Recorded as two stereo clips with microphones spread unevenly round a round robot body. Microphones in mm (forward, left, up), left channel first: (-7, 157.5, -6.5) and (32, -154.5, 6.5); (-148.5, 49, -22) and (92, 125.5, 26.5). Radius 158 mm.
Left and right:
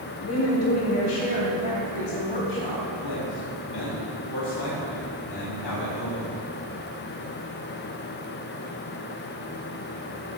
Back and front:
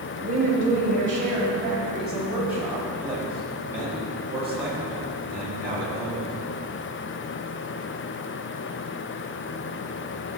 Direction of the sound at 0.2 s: 55° left.